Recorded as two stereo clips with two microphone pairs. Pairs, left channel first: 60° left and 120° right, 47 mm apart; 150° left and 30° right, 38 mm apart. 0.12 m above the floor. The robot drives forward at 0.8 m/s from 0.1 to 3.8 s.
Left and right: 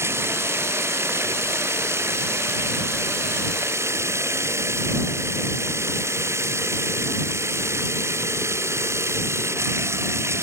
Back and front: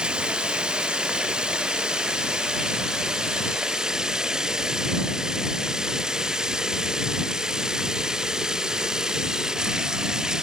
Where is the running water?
100° right; by 10.4 s 110° right.